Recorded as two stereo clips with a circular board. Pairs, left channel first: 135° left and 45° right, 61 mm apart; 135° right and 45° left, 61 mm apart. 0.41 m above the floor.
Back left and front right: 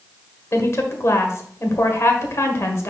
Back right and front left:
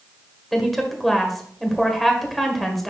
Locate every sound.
0.5 s a woman speaking: 135° left, 1.5 m